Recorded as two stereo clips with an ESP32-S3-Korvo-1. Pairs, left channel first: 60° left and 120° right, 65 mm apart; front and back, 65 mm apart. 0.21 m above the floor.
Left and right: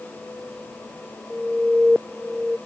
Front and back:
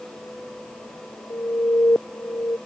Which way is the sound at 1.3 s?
35° right.